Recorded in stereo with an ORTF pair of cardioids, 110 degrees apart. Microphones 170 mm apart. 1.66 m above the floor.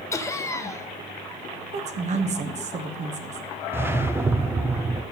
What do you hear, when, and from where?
0.1 s laughter: 20° left, 1.1 m
1.7 s a woman speaking: 40° right, 1.2 m
3.7 s a whoosh: 15° right, 0.6 m